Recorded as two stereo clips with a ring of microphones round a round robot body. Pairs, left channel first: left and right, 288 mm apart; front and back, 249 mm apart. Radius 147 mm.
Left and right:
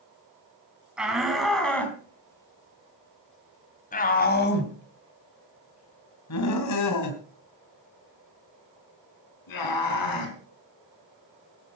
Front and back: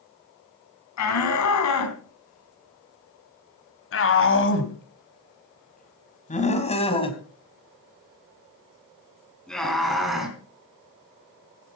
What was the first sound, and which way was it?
A shout, 5° right.